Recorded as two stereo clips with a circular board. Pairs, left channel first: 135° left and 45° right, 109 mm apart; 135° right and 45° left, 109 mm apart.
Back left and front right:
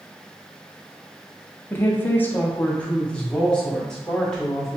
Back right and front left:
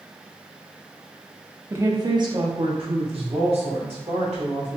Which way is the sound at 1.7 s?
85° left.